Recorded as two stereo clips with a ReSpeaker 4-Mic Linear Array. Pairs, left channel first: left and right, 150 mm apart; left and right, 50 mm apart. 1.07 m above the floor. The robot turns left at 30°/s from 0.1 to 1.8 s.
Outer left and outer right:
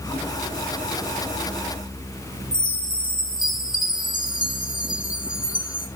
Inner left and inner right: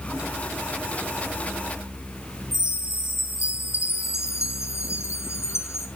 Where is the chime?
70° left (ahead or behind), 2.5 m.